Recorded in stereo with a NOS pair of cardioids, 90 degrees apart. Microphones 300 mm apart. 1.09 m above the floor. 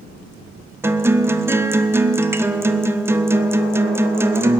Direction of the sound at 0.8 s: 10° right.